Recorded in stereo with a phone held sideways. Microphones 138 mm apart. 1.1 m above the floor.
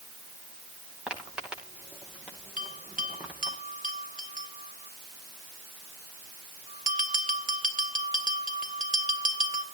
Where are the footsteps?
5° right (ahead or behind), 9.5 m; by 3.6 s 10° right (ahead or behind), 8 m.